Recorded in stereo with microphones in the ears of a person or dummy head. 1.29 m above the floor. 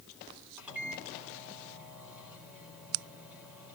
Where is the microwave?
10° right (ahead or behind), 4 m.